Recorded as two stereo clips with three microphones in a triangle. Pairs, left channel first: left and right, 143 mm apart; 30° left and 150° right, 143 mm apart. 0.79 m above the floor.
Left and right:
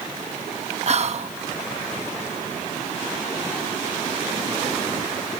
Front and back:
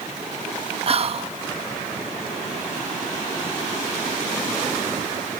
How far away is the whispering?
About 0.6 m.